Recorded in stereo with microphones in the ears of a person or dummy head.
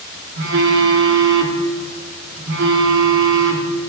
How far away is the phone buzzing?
About 2.5 m.